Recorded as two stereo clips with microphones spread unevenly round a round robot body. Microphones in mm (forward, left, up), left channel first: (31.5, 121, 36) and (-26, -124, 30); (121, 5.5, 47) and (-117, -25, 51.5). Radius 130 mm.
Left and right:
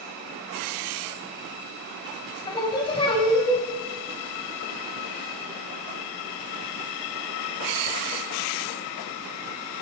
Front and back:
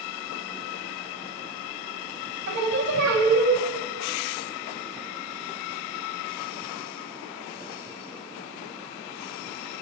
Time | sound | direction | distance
2.5 | singing | 145° left | 3.5 m